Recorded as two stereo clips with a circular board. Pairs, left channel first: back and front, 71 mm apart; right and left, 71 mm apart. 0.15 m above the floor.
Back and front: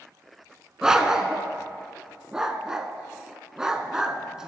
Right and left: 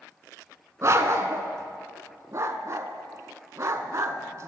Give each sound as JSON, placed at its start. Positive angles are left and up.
{"t": 0.8, "sound": "a dog barking", "azimuth_deg": 80, "distance_m": 0.6}